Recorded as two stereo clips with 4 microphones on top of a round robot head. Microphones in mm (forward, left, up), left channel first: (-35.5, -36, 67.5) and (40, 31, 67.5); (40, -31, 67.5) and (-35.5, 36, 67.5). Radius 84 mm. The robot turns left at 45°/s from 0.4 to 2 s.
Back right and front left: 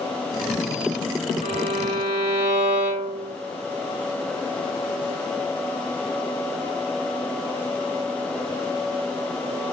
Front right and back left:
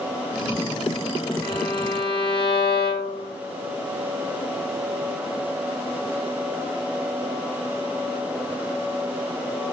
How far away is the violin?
About 2.5 m.